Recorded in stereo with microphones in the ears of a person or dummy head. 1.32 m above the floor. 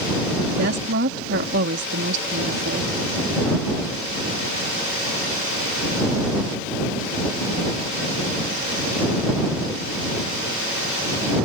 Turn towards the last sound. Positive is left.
turn(degrees=-65)  # may be behind; listen again after turning